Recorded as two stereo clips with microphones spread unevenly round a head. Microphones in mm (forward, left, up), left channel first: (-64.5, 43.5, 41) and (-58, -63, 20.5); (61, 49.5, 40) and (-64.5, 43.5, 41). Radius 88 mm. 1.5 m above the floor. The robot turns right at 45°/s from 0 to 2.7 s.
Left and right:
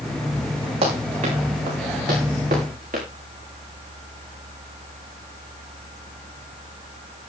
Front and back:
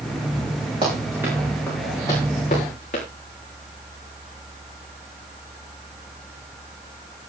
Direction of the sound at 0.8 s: 120° right.